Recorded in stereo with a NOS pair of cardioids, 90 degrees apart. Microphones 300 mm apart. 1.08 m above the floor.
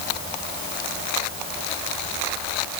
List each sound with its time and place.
Only background noise.